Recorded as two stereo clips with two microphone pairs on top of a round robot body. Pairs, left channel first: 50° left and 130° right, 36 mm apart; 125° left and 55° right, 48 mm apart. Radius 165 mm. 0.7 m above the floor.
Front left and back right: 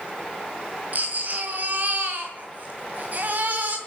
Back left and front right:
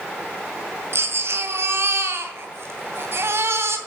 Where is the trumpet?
I don't hear a trumpet.